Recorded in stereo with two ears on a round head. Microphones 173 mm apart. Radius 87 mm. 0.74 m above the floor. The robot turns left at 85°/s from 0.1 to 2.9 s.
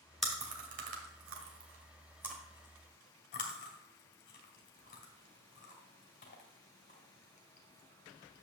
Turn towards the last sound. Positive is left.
turn(degrees=45)  # may be behind; listen again after turning